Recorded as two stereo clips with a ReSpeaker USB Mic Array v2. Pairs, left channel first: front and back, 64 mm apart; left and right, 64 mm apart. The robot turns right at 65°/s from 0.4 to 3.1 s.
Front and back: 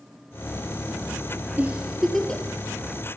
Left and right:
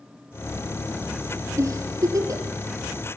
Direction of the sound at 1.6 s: 120° right.